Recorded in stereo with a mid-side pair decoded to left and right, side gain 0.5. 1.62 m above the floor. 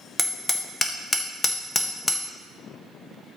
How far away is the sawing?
I don't hear sawing.